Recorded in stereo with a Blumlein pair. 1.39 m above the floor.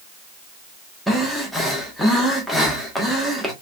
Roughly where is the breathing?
Ahead.